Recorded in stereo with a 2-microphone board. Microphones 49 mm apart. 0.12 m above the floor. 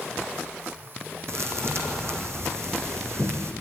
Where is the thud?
60° right (ahead or behind), 3 m.